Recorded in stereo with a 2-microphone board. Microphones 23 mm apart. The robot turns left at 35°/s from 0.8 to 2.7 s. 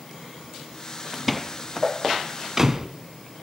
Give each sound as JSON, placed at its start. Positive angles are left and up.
{"t": 1.1, "sound": "a door slam", "side_deg": 0, "distance_m": 0.9}